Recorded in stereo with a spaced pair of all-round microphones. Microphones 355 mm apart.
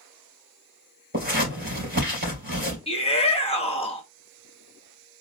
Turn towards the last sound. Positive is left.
turn(degrees=15)  # may be behind; listen again after turning